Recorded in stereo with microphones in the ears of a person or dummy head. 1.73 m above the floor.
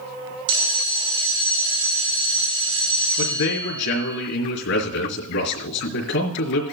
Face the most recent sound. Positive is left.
turn(degrees=75)  # may be behind; listen again after turning